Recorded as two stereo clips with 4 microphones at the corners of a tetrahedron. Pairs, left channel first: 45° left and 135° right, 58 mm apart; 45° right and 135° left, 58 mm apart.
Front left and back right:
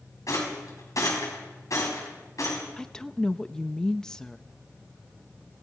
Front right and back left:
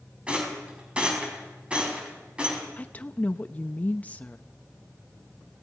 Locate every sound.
0.3 s a rattle: 65° left, 5 m
2.8 s a woman speaking: 20° right, 0.6 m